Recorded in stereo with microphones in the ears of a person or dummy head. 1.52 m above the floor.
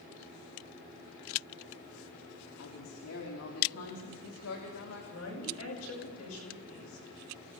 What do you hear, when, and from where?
2.6 s a woman speaking: 80° left, 4 m
5.1 s a woman speaking: 75° left (ahead or behind), 10 m